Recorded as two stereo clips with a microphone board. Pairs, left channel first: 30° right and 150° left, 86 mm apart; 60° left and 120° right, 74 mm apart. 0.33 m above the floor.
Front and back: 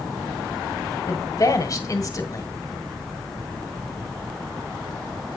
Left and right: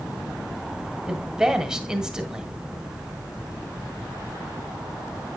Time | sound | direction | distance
1.1 | a woman speaking | 40° right | 1.6 m